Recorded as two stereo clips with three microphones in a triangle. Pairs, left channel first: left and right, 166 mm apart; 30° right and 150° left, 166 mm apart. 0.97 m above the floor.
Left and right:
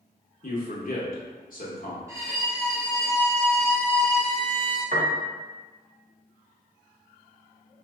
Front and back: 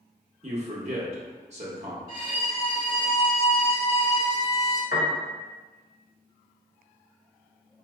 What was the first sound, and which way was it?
A man speaking, 110° left.